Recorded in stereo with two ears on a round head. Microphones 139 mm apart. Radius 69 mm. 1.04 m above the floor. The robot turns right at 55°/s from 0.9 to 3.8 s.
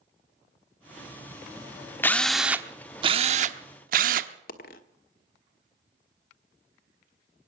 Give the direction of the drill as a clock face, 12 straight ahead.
7 o'clock.